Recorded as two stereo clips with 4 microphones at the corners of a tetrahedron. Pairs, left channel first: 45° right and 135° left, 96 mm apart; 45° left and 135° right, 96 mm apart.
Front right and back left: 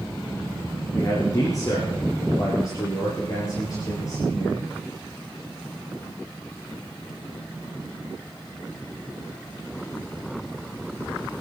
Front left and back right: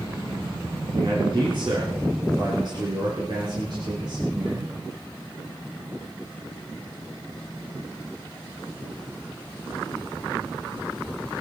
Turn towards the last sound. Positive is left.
turn(degrees=-95)